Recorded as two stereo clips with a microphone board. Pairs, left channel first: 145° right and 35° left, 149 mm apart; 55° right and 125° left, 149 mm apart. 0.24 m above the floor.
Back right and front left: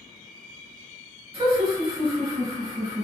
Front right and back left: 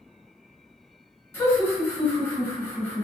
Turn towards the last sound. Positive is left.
turn(degrees=5)